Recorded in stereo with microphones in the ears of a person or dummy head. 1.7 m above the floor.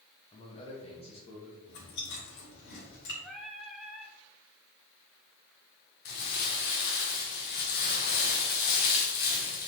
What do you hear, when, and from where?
0.3 s a man speaking: 35° left (ahead or behind), 1.8 m
1.7 s chewing: 60° left (ahead or behind), 3 m
3.2 s singing: centre (ahead or behind), 1.1 m
6.0 s crumpling: 50° left (ahead or behind), 2.0 m